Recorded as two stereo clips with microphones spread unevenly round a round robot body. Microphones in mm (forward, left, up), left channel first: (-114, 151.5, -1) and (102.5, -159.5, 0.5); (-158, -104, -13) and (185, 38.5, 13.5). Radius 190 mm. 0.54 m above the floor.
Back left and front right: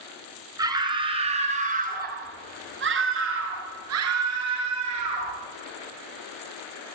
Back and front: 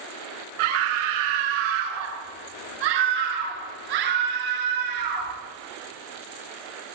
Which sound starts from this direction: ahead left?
A scream, at 0.6 s.